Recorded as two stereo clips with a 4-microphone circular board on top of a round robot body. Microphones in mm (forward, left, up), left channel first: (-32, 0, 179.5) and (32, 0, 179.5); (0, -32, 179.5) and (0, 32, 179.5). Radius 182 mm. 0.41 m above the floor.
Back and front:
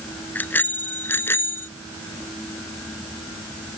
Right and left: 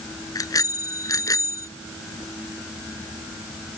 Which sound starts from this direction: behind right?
A bicycle bell, at 0.3 s.